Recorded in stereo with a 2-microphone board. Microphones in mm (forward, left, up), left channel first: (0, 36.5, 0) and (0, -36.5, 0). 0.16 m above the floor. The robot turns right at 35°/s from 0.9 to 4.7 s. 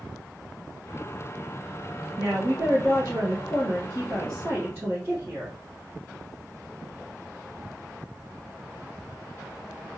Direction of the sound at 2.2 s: 120° right.